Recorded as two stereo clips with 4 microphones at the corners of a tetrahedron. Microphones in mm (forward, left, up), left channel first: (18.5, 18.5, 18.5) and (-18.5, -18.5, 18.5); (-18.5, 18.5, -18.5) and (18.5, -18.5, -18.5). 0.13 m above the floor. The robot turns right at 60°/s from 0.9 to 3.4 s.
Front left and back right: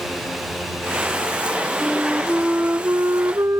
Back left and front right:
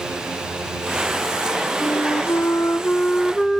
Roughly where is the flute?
Behind left.